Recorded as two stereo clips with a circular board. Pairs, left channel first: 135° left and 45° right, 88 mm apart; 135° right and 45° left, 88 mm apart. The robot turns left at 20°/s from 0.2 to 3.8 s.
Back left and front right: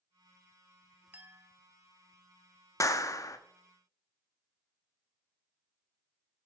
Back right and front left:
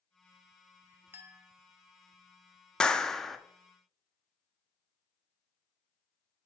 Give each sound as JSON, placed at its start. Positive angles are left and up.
{"t": 1.1, "sound": "a clink", "azimuth_deg": 5, "distance_m": 0.6}
{"t": 2.8, "sound": "a clap", "azimuth_deg": 150, "distance_m": 0.5}